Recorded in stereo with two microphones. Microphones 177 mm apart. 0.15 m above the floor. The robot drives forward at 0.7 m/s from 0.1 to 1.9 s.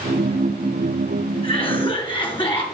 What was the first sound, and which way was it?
A cough, 30° left (ahead or behind).